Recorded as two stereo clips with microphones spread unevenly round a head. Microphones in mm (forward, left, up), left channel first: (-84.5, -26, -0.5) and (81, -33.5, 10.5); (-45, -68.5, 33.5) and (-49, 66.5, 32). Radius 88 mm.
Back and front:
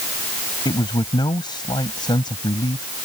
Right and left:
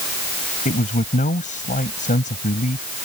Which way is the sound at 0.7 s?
115° right.